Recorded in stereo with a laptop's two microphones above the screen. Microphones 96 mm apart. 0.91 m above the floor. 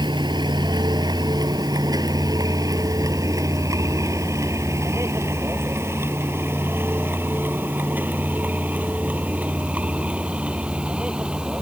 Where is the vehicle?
50° right (ahead or behind); by 11.6 s 10° right (ahead or behind).